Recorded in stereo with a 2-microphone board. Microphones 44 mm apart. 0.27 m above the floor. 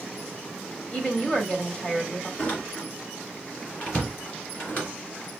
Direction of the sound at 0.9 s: 25° left (ahead or behind).